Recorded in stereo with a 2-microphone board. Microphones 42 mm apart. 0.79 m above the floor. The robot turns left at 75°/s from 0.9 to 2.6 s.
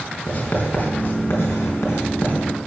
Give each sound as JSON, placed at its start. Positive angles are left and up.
{"t": 0.3, "sound": "writing", "side_deg": 35, "distance_m": 4.0}